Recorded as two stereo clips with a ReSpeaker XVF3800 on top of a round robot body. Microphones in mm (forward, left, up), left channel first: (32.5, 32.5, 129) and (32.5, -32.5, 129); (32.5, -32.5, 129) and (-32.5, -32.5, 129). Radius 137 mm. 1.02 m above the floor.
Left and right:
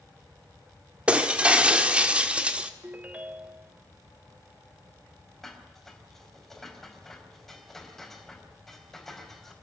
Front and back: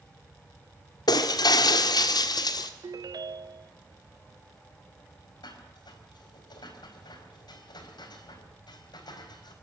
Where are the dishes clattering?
5° left, 4.5 m.